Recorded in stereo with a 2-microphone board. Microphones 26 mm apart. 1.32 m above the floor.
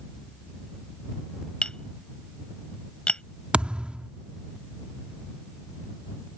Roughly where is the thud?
Right.